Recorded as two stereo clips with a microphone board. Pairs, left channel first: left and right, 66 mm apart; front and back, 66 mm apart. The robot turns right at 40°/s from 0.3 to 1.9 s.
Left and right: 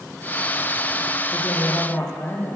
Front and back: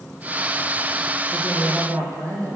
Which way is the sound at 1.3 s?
125° left.